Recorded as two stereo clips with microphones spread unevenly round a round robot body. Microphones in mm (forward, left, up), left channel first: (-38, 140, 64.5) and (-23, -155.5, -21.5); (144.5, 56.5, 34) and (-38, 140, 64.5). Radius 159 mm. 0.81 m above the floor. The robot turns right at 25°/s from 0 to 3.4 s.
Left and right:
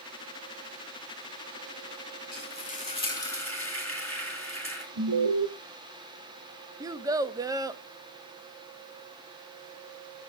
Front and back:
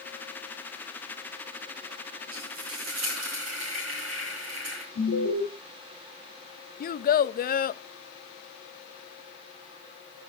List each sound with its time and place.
2.3 s frying: 150° left, 4 m; by 4.8 s 175° left, 4 m
5.0 s an alarm: 50° right, 1.5 m
6.8 s a child speaking: 25° right, 0.6 m